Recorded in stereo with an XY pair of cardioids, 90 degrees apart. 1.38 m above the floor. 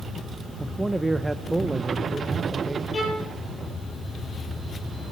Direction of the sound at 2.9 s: 40° left.